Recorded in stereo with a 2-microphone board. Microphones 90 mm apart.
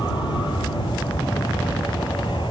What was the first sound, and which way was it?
An aircraft, 65° left (ahead or behind).